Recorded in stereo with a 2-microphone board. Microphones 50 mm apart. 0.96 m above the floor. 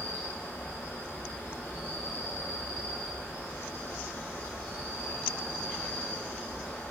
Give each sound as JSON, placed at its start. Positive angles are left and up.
{"t": 0.0, "sound": "an insect", "side_deg": 65, "distance_m": 1.6}